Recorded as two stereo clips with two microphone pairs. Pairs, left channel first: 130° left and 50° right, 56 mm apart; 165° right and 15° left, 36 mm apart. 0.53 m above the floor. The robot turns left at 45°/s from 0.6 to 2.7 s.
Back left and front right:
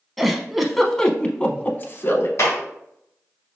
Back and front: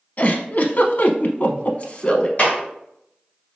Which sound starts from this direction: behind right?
A giggle, at 0.2 s.